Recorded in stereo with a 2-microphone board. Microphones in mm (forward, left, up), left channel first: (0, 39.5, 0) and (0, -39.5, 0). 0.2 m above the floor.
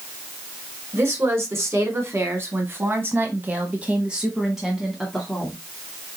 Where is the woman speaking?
35° right (ahead or behind), 2 m; by 5.6 s 5° left (ahead or behind), 1.7 m.